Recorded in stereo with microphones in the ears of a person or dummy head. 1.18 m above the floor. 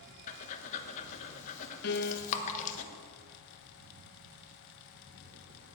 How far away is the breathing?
About 1.1 m.